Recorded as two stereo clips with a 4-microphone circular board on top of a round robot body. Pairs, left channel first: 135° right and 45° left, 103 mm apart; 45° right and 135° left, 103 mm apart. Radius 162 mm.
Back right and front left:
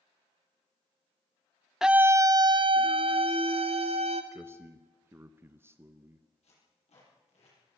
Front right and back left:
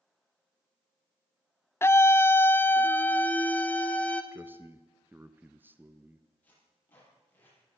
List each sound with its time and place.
1.8 s a scream: 35° right, 0.8 m; by 4.2 s 30° left, 2.5 m
4.3 s a man speaking: 85° left, 1.2 m
6.4 s tape being pulled: 120° right, 9 m